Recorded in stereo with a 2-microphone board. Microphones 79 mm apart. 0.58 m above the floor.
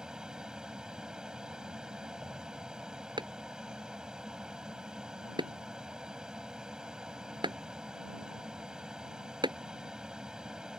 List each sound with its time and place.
0.0 s an aircraft: 10° right (ahead or behind)
3.2 s a clap: 85° right